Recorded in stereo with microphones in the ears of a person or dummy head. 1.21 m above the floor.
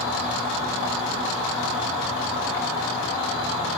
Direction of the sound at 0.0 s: 15° right (ahead or behind).